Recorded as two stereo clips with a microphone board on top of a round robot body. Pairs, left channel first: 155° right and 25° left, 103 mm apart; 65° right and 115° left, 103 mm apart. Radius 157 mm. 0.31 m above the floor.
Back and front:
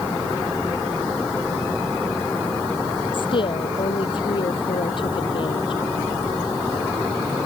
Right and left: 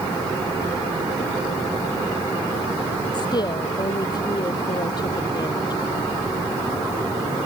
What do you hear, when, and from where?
3.1 s a woman speaking: 115° right